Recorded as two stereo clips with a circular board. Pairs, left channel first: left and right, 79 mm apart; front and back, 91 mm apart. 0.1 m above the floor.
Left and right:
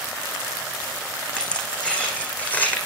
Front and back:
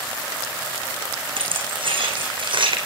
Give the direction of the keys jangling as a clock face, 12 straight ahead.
6 o'clock.